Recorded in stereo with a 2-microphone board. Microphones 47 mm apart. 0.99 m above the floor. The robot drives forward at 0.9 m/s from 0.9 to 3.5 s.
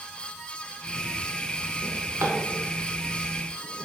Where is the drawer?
50° right (ahead or behind), 2.0 m; by 3.9 s 30° right (ahead or behind), 3 m.